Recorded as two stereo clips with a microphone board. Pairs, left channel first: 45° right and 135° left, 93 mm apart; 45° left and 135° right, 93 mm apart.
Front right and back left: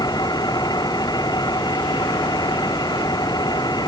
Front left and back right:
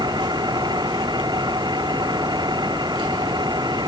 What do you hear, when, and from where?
0.0 s an engine running: 95° right